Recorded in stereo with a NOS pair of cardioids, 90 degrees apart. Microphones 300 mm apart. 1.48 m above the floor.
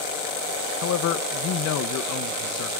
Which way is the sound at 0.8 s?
65° left.